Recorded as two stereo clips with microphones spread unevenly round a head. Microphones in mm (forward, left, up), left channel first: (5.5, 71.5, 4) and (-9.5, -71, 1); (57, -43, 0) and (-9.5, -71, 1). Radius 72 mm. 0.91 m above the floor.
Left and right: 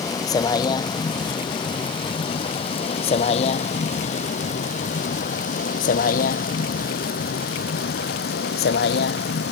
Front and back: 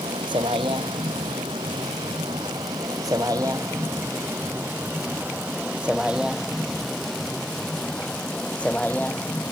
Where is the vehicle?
150° left; by 9.5 s 100° left.